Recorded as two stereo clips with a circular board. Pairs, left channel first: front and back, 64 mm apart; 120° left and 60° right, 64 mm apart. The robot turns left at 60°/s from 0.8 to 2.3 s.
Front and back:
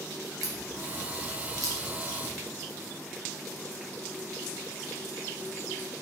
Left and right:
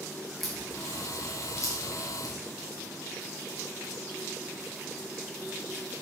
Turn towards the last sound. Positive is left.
turn(degrees=115)